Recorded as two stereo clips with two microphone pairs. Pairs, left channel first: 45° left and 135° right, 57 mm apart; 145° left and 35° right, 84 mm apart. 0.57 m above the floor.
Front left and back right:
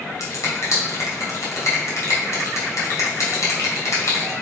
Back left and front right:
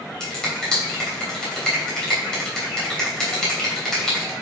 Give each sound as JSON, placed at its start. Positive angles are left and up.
{"t": 0.2, "sound": "a finger snap", "azimuth_deg": 60, "distance_m": 3.0}